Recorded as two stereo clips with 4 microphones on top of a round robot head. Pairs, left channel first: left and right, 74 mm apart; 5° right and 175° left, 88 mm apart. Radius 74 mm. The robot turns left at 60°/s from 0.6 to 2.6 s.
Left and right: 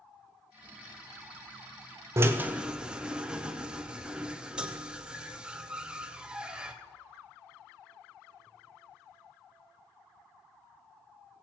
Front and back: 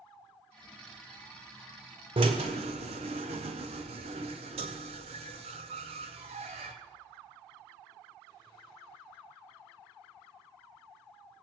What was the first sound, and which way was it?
A drill, 140° right.